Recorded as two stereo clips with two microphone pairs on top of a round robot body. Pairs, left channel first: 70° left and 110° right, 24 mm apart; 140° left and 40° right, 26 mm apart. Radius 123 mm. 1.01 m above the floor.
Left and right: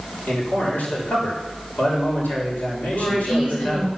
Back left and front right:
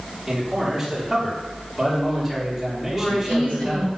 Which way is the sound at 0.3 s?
50° left.